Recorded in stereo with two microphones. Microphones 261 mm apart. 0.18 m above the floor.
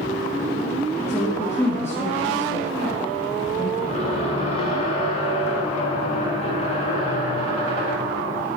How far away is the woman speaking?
About 3.5 m.